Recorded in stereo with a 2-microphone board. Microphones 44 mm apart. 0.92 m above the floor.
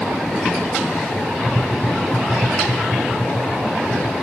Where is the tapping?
85° left, 4.5 m.